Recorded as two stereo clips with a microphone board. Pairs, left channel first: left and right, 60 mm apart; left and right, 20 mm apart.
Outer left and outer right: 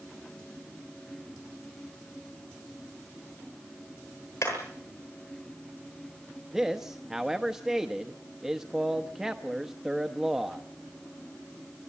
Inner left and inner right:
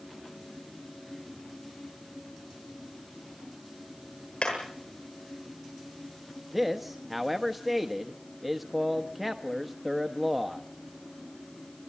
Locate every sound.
4.4 s hammering: 80° left, 9 m
6.5 s a man speaking: 5° right (ahead or behind), 1.0 m